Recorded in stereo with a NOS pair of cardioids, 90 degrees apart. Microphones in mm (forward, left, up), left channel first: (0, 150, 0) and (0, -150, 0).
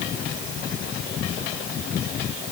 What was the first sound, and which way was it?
Only background noise.